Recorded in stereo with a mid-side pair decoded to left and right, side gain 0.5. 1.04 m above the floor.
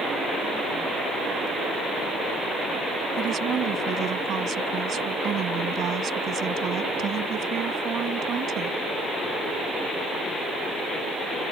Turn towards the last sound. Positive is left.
turn(degrees=-55)